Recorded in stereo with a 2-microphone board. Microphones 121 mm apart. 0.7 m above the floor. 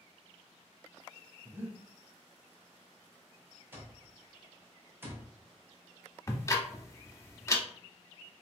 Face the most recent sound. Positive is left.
turn(degrees=25)  # may be behind; listen again after turning